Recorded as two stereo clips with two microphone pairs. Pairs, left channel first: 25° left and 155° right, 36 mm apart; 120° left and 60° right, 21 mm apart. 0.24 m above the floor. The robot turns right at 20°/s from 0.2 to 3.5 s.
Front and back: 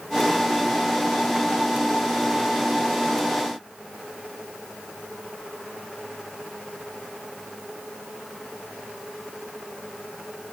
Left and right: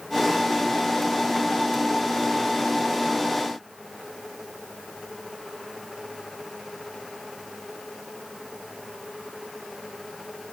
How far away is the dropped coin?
No dropped coin in this recording.